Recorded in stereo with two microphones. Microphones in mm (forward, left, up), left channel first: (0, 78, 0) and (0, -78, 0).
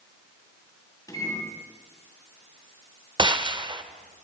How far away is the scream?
No scream in this recording.